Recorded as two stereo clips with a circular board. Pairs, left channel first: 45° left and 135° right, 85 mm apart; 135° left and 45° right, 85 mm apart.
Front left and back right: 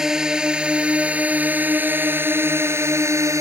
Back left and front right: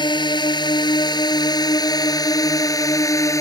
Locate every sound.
0.0 s a drone: 140° left; by 3.4 s straight behind